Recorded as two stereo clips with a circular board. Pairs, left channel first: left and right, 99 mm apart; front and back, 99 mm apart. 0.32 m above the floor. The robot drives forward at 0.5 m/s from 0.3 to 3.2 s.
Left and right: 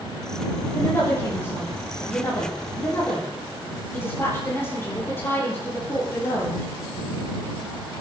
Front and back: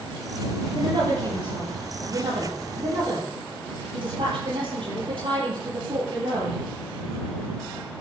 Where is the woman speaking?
150° left, 7 m; by 6.6 s 155° left, 8 m.